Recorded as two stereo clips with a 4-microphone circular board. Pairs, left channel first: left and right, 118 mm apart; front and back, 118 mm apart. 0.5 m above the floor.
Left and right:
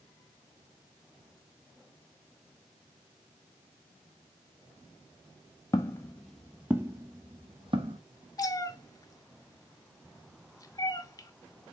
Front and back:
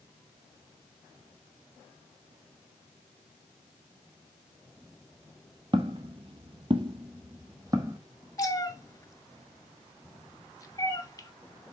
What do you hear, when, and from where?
5.7 s footsteps: 145° left, 0.9 m; by 8.0 s 120° right, 1.3 m
8.4 s a cat meowing: 45° left, 0.6 m